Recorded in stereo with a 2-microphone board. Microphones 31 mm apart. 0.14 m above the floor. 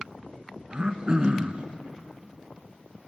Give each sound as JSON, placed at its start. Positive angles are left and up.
{"t": 0.7, "sound": "throat clearing", "side_deg": -35, "distance_m": 0.8}